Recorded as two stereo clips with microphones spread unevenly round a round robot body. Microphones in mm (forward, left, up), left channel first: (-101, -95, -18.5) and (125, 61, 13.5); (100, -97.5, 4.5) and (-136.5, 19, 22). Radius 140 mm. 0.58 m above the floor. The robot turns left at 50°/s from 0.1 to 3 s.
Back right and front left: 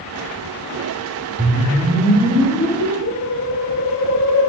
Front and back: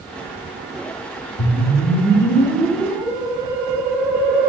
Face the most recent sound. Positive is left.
turn(degrees=-120)